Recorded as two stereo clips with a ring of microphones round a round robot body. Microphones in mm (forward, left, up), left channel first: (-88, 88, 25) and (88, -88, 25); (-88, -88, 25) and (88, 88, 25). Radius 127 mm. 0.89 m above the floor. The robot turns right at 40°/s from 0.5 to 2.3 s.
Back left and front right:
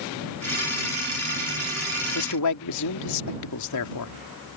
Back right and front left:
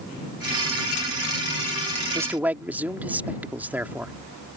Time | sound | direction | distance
2.1 | a man speaking | 120° left | ?